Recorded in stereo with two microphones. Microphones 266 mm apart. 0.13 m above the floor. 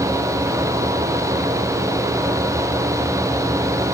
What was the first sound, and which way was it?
Only background noise.